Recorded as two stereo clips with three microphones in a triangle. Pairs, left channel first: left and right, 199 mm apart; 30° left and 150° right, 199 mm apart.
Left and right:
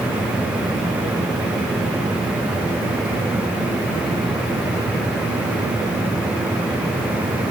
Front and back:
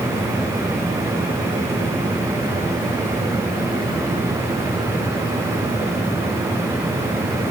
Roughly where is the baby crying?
I don't hear a baby crying.